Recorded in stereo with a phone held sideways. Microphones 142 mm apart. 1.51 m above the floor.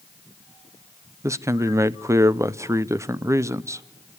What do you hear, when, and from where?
1.2 s a man speaking: 20° right (ahead or behind), 0.6 m